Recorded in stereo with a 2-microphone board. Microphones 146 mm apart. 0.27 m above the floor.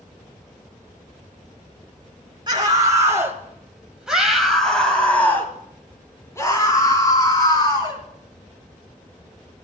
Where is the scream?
30° right (ahead or behind), 1.4 m; by 8.0 s 30° left (ahead or behind), 3 m.